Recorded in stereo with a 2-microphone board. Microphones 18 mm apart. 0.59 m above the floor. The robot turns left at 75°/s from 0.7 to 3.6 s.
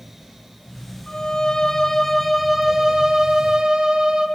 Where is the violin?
100° left, 1.7 m; by 4.3 s 90° right, 1.7 m.